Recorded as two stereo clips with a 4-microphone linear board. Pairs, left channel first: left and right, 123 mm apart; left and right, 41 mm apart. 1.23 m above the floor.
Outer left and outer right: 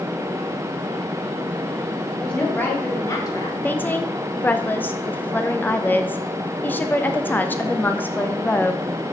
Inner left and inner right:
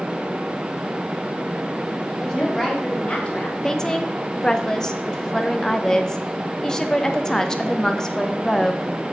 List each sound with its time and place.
2.2 s a woman speaking: 5° left (ahead or behind), 2.5 m; by 3.5 s 40° left (ahead or behind), 1.7 m
3.6 s a woman speaking: 15° left (ahead or behind), 0.7 m